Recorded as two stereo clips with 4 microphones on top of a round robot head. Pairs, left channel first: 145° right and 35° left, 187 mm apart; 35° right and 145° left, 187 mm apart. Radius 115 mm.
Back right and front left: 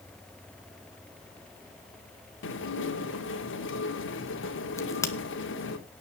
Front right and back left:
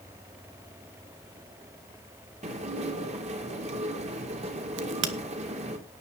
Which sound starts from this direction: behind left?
A crack, at 4.8 s.